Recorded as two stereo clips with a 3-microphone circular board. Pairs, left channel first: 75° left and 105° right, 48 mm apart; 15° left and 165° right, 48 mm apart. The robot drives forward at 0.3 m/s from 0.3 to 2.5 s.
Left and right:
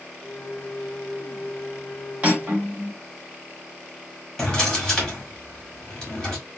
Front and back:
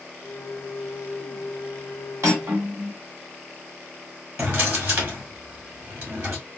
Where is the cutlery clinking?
170° right, 1.8 m.